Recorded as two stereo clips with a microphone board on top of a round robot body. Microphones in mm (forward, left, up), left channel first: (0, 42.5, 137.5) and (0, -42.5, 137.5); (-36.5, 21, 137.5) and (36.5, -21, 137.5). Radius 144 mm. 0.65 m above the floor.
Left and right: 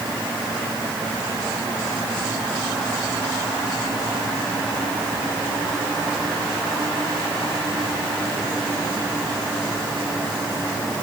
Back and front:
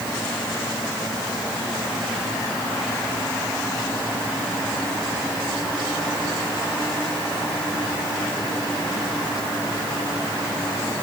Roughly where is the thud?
I don't hear a thud.